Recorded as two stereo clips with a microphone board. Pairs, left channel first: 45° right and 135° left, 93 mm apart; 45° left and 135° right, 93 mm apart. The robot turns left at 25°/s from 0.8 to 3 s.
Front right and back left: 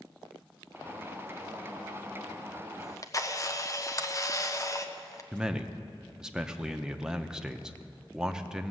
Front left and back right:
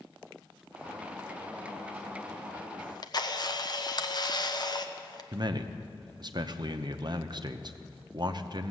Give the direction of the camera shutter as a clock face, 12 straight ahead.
12 o'clock.